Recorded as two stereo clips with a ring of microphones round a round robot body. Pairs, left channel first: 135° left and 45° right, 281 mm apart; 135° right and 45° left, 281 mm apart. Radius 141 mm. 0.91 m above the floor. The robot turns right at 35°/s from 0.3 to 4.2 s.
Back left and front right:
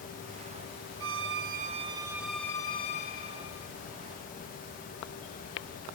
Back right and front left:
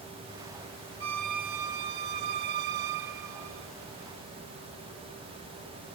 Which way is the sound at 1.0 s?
Straight ahead.